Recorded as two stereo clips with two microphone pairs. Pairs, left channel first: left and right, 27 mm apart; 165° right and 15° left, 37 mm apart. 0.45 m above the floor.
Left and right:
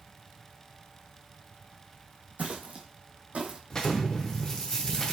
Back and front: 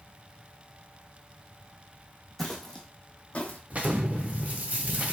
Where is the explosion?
30° left, 0.5 m.